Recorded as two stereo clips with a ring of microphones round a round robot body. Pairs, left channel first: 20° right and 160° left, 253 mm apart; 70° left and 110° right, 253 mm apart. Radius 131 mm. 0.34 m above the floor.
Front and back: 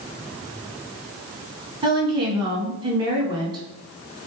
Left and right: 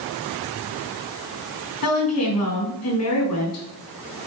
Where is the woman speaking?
85° left, 3.5 m.